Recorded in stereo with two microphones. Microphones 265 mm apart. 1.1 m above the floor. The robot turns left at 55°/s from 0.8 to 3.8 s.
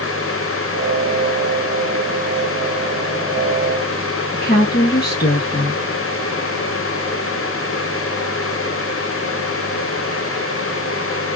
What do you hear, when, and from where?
4.3 s a woman speaking: 35° left (ahead or behind), 1.2 m